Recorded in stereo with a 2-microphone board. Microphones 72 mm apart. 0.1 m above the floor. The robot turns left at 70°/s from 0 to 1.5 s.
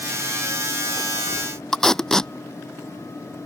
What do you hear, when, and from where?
1.7 s tape being pulled: 10° left (ahead or behind)